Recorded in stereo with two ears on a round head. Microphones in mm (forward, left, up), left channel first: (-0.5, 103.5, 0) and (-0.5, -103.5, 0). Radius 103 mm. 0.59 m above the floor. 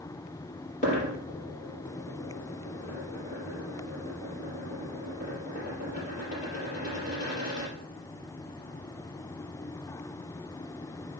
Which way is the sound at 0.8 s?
35° left (ahead or behind).